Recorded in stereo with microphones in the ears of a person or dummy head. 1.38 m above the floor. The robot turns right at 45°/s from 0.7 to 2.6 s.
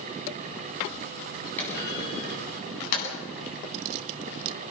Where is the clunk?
10° left (ahead or behind), 9 m; by 3.1 s 55° left (ahead or behind), 9 m.